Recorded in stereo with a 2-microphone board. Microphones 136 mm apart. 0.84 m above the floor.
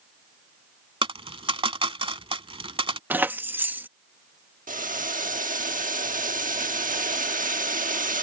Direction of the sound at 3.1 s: 15° right (ahead or behind).